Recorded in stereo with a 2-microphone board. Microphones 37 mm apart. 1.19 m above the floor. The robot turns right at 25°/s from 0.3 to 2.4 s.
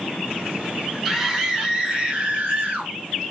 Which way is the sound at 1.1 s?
175° right.